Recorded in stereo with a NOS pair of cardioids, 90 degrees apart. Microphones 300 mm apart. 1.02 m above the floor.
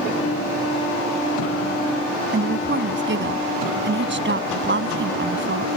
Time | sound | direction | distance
2.3 | a woman speaking | 40° right | ?